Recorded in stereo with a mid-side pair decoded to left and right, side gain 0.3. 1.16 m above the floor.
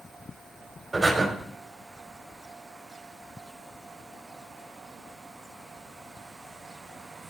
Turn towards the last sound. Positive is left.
turn(degrees=-25)